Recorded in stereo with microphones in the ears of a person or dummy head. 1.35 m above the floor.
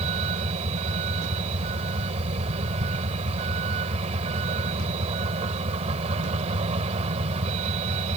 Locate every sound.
0.0 s a vehicle: 35° right (ahead or behind)